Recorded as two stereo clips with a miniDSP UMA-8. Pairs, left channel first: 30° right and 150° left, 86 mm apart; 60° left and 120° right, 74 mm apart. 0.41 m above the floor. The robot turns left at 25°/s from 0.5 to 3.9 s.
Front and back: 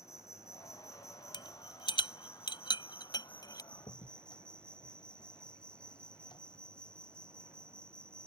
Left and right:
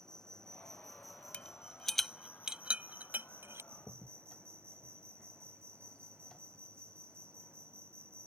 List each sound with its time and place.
0.0 s an insect: 15° right; by 8.3 s 100° right
1.3 s a rattle: 10° right; by 3.6 s 70° right
3.7 s a crack: 20° right; by 6.4 s 25° right